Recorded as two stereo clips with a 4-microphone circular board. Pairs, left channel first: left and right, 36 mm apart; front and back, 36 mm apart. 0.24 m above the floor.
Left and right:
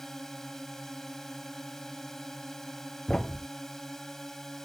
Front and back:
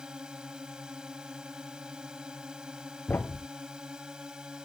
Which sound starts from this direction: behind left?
A drone, at 0.0 s.